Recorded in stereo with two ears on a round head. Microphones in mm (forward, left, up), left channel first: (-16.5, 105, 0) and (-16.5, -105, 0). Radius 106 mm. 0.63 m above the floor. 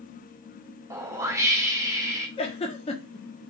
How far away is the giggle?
About 1.0 m.